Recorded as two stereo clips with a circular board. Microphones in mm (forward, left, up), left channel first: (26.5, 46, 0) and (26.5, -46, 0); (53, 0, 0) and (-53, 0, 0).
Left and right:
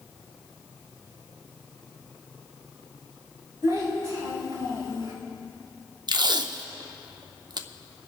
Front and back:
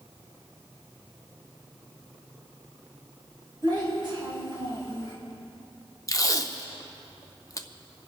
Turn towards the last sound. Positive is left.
turn(degrees=-55)